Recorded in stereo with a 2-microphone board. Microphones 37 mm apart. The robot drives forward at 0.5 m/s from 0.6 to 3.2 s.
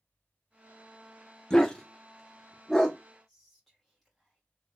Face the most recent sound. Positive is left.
turn(degrees=5)  # may be behind; listen again after turning